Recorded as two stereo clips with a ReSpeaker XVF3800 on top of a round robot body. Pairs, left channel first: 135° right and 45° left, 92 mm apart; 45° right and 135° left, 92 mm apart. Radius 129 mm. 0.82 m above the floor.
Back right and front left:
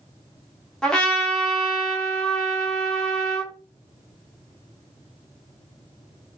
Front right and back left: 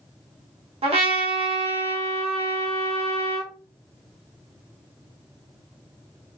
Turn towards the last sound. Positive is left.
turn(degrees=145)